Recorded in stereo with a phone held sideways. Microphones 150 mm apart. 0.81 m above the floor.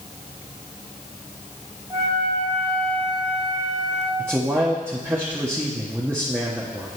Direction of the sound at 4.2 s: 15° right (ahead or behind).